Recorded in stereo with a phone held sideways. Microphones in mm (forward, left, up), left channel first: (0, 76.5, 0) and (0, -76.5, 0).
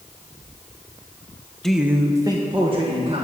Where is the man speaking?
5° left (ahead or behind), 0.8 m; by 3.2 s 40° right (ahead or behind), 2 m.